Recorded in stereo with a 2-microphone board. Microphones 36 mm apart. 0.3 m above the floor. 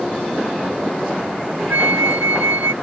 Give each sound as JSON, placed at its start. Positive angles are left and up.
{"t": 1.7, "sound": "a flute", "side_deg": -60}